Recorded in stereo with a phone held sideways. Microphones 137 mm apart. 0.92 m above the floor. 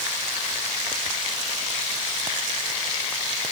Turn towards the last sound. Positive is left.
No sound to turn to.